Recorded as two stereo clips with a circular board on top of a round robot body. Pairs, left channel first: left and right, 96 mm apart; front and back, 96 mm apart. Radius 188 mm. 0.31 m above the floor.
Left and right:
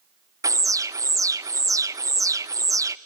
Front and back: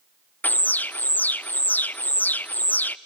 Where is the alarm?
60° right, 0.7 m.